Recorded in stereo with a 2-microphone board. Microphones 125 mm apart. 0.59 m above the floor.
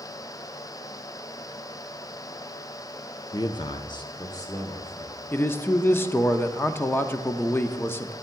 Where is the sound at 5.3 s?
20° left (ahead or behind), 0.7 m.